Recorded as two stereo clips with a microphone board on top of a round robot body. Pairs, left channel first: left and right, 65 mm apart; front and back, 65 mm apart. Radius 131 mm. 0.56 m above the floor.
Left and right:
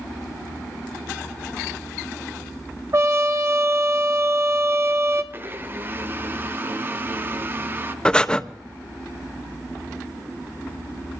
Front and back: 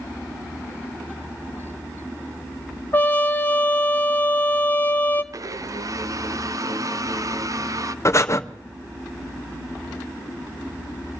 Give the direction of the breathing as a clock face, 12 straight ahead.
11 o'clock.